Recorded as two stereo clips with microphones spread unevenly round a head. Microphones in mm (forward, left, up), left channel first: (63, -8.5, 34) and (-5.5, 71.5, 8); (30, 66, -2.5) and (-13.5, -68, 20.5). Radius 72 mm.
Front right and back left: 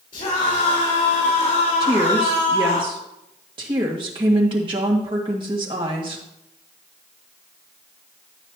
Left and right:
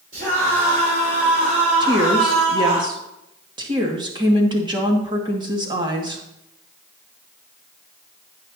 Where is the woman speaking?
170° right, 2.0 m.